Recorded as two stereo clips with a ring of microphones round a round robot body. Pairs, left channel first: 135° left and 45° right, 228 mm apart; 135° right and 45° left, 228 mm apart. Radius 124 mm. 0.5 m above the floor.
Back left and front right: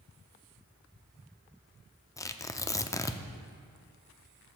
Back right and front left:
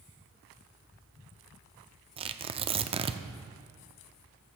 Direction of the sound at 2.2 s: 75° left.